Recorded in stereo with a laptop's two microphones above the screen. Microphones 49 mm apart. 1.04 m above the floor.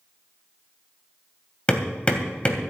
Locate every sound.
1.7 s hammering: 25° left (ahead or behind), 2.5 m